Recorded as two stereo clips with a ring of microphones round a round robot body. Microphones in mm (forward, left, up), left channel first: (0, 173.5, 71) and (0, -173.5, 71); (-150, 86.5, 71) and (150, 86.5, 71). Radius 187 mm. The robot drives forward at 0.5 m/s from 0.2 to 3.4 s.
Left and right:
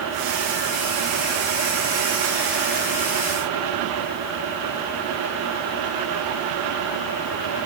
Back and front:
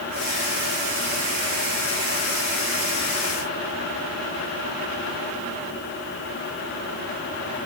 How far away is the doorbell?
I don't hear a doorbell.